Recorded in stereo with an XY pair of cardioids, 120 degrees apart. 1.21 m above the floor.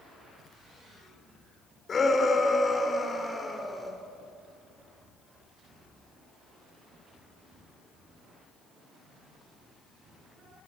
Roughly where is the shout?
Ahead left.